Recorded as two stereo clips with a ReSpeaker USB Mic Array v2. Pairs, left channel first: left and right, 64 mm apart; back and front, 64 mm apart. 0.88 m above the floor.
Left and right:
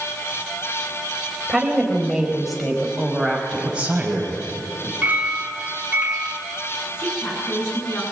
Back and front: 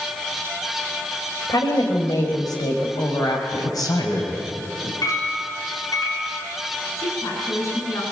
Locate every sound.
1.5 s a woman speaking: 175° right, 4.5 m; by 3.8 s 170° left, 5.5 m
3.6 s a man speaking: 165° right, 5.5 m
5.0 s a clink: 160° right, 6.5 m
7.0 s a woman speaking: 140° left, 9.5 m